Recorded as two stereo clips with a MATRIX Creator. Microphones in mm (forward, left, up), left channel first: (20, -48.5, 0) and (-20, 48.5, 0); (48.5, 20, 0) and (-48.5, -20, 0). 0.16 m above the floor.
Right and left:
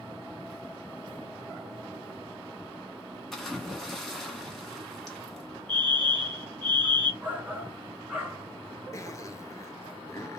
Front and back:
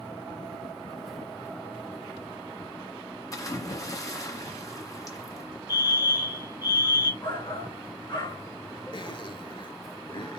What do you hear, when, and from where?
3.3 s a splash: 15° left, 1.6 m
5.7 s a fire alarm: 135° right, 2 m
7.2 s a shout: 40° left, 2 m
8.9 s a zipper: 10° right, 0.8 m